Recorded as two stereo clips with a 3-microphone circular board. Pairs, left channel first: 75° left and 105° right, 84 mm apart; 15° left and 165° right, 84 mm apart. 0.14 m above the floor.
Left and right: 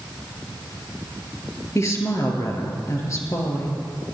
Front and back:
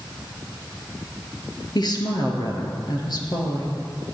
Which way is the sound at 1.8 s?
30° left.